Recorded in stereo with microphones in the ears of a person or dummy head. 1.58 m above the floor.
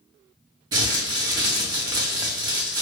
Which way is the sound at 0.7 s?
20° right (ahead or behind).